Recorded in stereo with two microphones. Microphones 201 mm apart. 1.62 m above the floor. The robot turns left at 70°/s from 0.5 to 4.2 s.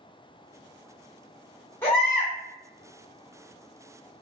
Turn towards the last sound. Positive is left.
turn(degrees=-155)